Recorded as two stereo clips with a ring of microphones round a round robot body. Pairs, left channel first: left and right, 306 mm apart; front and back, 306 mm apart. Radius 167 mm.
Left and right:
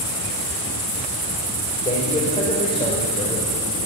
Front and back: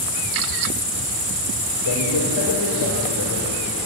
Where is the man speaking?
20° left, 4.5 m.